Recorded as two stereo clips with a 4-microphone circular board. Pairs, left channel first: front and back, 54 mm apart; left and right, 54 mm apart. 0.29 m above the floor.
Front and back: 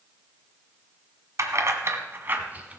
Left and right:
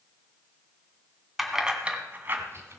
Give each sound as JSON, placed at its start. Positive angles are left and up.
{"t": 1.4, "sound": "keys jangling", "azimuth_deg": 180, "distance_m": 1.7}